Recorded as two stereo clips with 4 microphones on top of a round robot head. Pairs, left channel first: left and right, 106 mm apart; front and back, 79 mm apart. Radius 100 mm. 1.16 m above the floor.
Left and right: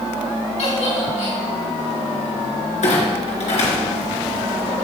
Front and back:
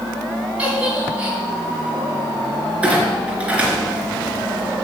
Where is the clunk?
105° left, 3 m.